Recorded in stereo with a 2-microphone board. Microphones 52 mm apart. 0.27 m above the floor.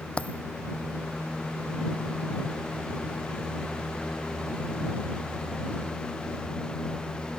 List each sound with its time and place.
0.2 s a dropped coin: 25° left (ahead or behind)